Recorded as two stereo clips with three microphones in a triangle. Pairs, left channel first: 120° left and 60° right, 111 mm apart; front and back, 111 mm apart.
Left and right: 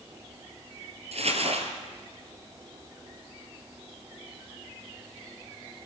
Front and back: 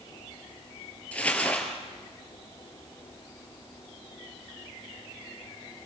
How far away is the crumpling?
About 3.5 m.